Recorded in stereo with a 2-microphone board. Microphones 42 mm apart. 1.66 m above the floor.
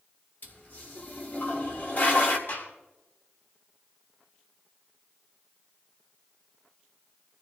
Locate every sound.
0.4 s a toilet flushing: 50° left (ahead or behind), 2 m
2.5 s a gunshot: 60° left (ahead or behind), 7 m